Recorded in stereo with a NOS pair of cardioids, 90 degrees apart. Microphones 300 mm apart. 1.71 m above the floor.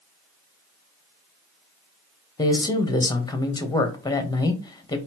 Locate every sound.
2.4 s a man speaking: 15° left, 1.3 m